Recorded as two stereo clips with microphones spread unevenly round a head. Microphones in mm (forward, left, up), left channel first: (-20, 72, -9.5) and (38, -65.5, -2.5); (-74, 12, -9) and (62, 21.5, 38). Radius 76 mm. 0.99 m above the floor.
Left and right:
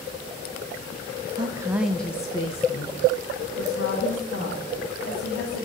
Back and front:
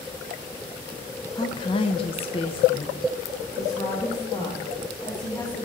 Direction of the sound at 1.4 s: 130° right.